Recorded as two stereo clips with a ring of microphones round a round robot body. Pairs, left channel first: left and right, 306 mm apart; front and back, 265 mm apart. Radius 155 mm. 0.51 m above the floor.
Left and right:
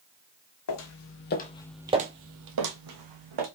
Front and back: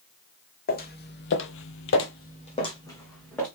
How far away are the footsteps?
About 1.2 m.